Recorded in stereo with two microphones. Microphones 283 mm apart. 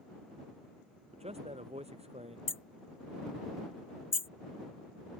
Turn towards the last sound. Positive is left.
turn(degrees=45)  # may be behind; listen again after turning